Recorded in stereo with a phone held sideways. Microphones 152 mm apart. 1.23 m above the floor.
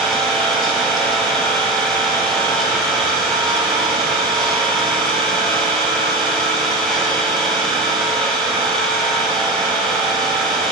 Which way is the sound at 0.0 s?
Centre (ahead or behind).